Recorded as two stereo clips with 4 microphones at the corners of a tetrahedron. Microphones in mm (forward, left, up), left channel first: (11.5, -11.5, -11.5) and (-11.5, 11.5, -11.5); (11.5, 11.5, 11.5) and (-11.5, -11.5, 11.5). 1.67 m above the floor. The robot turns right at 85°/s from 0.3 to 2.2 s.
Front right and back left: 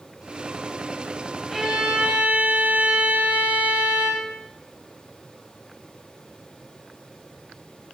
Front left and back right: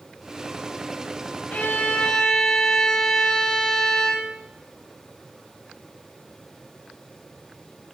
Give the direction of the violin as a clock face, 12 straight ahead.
10 o'clock.